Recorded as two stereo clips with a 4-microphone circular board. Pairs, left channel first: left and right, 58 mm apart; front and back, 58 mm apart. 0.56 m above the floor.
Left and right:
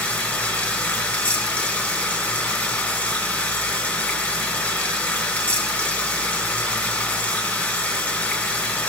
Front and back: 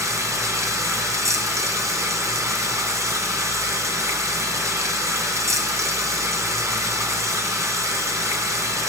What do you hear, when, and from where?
0.0 s running water: 155° left, 2.5 m